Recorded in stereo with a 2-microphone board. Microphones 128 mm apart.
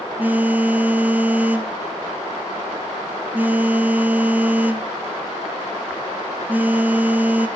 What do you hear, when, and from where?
0.2 s a phone buzzing: 15° right (ahead or behind), 0.6 m